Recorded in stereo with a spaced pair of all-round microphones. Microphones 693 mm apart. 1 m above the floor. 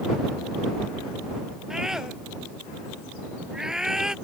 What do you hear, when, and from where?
1.7 s a scream: centre (ahead or behind)